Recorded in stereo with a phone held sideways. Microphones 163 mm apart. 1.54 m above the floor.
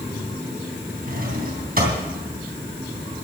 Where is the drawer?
60° right (ahead or behind), 3 m.